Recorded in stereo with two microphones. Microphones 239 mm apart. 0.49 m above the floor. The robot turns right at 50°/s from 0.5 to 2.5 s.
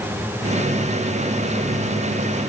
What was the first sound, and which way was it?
Only background noise.